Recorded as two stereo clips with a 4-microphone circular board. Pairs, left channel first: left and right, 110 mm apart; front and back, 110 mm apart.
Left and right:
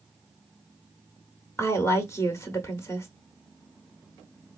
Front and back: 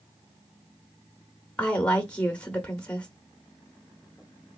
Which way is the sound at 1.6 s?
70° left.